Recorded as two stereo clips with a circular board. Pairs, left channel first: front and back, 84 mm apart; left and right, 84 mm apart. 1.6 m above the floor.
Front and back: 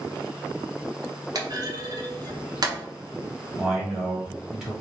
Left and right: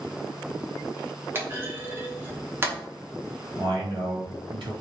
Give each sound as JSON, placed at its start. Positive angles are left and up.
{"t": 1.4, "sound": "a clunk", "azimuth_deg": -150, "distance_m": 1.0}
{"t": 3.6, "sound": "a man speaking", "azimuth_deg": -95, "distance_m": 1.8}